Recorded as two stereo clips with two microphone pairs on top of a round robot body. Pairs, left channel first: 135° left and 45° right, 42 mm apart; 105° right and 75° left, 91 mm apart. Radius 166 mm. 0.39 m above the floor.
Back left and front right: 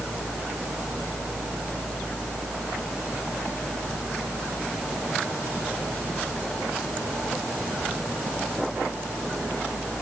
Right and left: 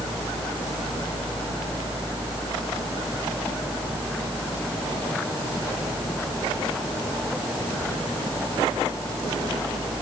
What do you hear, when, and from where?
Only background noise.